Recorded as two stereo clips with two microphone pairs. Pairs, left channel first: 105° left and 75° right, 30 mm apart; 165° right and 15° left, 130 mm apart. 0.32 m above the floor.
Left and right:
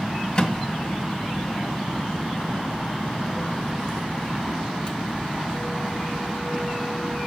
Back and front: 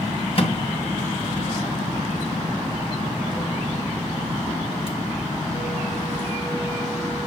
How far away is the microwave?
About 2.5 m.